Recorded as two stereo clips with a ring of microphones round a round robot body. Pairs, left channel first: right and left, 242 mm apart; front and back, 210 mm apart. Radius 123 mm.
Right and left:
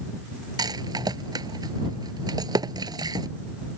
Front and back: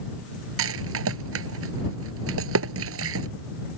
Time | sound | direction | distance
0.6 | a rattle | 165° left | ?